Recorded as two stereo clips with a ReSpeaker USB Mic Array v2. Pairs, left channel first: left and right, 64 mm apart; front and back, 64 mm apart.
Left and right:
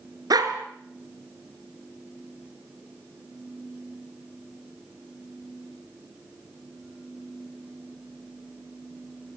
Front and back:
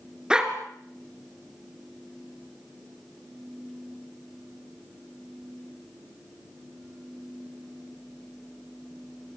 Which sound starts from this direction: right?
A dog barking, at 0.3 s.